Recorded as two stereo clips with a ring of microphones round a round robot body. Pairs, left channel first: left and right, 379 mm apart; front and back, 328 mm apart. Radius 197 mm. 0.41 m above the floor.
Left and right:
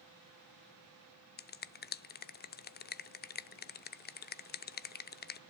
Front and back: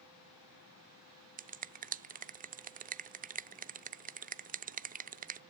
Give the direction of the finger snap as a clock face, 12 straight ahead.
8 o'clock.